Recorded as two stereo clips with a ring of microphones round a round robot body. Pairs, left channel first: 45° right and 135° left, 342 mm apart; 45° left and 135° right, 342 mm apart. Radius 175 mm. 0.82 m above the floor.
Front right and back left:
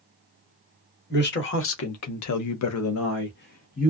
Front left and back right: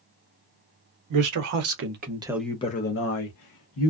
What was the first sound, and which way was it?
A man speaking, 105° right.